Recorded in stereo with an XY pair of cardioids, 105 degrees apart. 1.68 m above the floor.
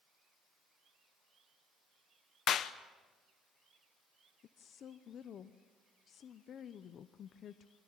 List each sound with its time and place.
2.5 s a clap: 65° left, 1.0 m
4.4 s a woman speaking: 60° left, 0.8 m